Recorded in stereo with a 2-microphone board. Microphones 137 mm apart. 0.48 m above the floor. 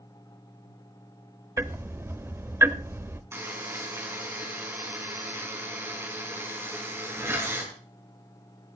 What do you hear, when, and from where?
1.6 s ticking: 20° right (ahead or behind), 0.5 m
3.3 s a buzzer: 20° right (ahead or behind), 4.5 m